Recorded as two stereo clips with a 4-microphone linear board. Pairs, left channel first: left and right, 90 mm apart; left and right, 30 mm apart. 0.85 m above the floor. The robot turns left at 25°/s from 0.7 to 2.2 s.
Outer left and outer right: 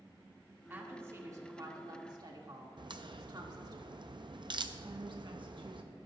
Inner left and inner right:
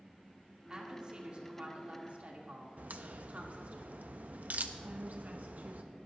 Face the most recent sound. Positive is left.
turn(degrees=-60)  # may be behind; listen again after turning